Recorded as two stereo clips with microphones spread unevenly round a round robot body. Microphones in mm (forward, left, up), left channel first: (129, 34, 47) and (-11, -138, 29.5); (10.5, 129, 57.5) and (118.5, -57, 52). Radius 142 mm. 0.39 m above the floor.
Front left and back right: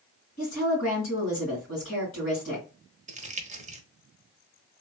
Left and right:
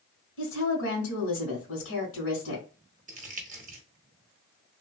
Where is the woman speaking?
110° left, 2 m.